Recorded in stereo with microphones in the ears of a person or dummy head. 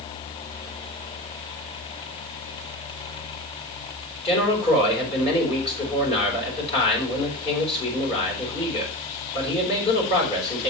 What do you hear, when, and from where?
4.2 s a man speaking: 35° left (ahead or behind), 4.5 m